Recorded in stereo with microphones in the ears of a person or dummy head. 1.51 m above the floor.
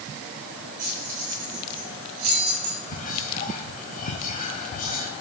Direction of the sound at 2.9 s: 40° left (ahead or behind).